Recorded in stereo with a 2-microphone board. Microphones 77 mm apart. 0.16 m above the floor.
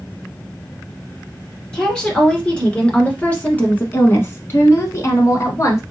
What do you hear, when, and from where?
1.7 s a woman speaking: 10° left (ahead or behind), 2 m; by 5.8 s 35° left (ahead or behind), 1.2 m